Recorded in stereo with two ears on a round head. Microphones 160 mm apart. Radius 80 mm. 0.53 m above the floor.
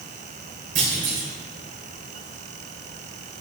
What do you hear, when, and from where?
0.8 s a clunk: 45° right (ahead or behind), 2.5 m